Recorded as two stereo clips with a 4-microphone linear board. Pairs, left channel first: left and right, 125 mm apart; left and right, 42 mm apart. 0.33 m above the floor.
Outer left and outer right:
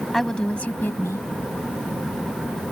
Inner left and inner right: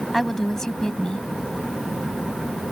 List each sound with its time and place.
0.1 s a woman speaking: centre (ahead or behind); by 1.3 s 25° left (ahead or behind)